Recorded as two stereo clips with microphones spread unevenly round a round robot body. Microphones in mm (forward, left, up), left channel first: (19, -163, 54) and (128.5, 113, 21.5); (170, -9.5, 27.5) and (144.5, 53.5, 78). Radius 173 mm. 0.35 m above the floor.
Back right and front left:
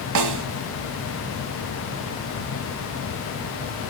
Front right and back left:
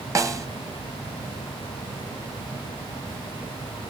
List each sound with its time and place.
0.1 s a snare drum: 55° left, 1.3 m